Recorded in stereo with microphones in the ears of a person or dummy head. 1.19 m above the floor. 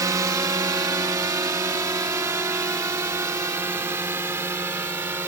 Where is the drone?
15° right (ahead or behind).